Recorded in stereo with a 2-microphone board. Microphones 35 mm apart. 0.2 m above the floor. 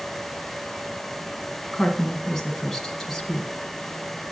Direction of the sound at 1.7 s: 10° left (ahead or behind).